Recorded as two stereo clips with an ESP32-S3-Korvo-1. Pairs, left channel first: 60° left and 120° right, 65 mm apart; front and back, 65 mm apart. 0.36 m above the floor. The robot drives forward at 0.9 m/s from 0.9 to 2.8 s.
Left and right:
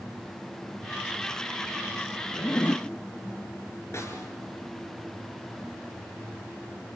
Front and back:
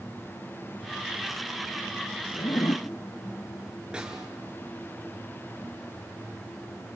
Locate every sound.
2.3 s a zipper: straight ahead, 0.9 m; by 2.9 s 5° left, 0.5 m
3.9 s a snare drum: 105° left, 3.5 m